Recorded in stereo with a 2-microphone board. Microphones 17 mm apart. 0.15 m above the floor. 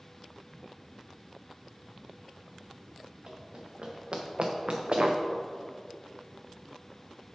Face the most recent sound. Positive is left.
turn(degrees=-60)  # may be behind; listen again after turning